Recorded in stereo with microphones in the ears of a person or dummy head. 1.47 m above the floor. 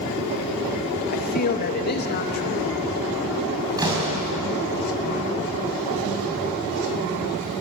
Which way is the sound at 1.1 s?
45° left (ahead or behind).